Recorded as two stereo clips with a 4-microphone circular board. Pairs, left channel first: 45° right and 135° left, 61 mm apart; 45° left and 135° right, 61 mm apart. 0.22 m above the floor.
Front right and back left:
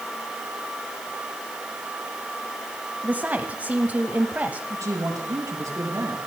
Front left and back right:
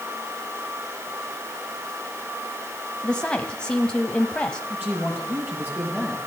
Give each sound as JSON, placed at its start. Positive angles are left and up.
{"t": 3.0, "sound": "a woman speaking", "azimuth_deg": 105, "distance_m": 1.2}
{"t": 4.7, "sound": "a man speaking", "azimuth_deg": 165, "distance_m": 5.0}